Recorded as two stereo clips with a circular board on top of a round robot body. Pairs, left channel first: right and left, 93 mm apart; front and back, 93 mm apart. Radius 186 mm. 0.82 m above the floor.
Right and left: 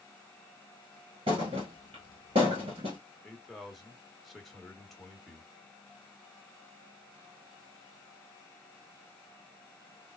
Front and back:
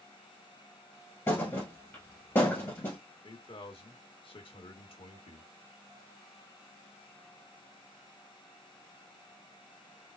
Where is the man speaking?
Straight ahead, 1.3 m.